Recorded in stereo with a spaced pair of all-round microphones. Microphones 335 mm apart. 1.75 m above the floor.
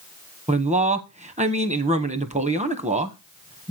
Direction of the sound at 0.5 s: 20° right (ahead or behind).